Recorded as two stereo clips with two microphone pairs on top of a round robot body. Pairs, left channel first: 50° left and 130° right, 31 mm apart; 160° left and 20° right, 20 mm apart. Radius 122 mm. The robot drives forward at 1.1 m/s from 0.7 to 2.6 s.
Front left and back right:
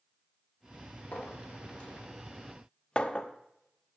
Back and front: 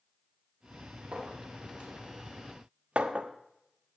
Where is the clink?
5° right, 2.5 m; by 4.0 s 10° right, 0.9 m.